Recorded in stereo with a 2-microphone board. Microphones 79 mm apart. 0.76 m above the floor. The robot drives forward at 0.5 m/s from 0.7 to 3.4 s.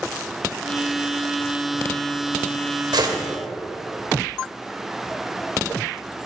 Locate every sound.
2.9 s a gunshot: 75° right (ahead or behind), 2.5 m